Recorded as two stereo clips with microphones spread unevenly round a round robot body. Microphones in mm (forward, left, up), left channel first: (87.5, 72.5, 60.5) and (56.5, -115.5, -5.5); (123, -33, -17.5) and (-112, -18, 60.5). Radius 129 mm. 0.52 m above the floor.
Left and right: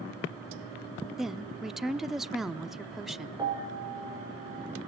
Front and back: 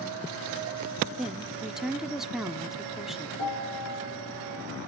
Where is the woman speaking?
55° right, 0.7 m.